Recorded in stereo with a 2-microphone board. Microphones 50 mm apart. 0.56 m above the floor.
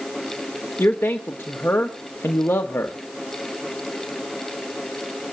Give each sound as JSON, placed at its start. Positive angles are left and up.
{"t": 0.8, "sound": "a man speaking", "side_deg": 45, "distance_m": 1.6}